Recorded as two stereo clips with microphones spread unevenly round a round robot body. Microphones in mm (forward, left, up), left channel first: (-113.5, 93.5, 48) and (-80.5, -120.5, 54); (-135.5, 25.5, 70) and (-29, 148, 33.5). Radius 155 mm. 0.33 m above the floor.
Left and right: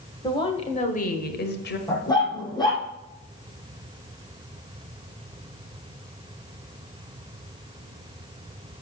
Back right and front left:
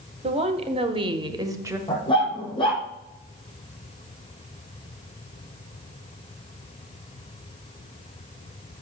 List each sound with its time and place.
0.2 s a woman speaking: 30° left, 1.5 m; by 1.8 s 110° left, 1.5 m
1.9 s a dog barking: 170° left, 4.5 m